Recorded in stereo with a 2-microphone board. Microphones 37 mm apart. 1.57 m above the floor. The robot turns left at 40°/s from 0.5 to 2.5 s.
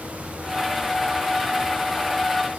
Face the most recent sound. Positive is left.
No sound to turn to.